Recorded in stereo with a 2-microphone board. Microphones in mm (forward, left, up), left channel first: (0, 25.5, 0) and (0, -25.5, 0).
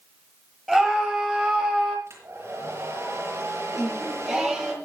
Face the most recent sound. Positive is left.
turn(degrees=-10)  # may be behind; listen again after turning